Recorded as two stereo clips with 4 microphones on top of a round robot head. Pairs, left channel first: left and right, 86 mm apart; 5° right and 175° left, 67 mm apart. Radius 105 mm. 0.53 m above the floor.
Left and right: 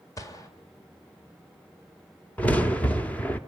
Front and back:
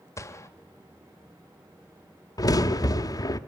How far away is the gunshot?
About 2 m.